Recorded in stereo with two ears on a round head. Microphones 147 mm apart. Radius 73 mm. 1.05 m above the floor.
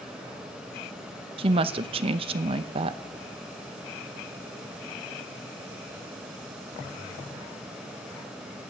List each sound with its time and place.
1.4 s a woman speaking: 35° right (ahead or behind), 0.7 m